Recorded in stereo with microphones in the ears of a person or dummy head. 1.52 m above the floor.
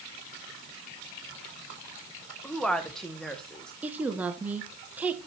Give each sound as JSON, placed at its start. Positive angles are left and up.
{"t": 2.4, "sound": "a woman speaking", "side_deg": -5, "distance_m": 1.0}
{"t": 3.8, "sound": "a woman speaking", "side_deg": -5, "distance_m": 1.3}